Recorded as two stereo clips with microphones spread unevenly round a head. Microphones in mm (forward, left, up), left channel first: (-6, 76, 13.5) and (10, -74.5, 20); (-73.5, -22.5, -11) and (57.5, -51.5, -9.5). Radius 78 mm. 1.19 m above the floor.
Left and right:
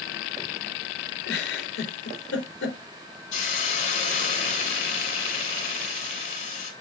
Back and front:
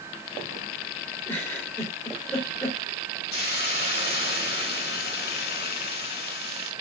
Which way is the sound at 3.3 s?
140° left.